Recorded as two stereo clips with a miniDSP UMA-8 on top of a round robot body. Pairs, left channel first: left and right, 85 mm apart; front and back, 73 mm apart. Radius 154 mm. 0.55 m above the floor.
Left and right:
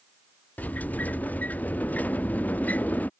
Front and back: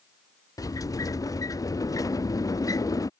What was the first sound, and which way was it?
A sliding door, 20° left.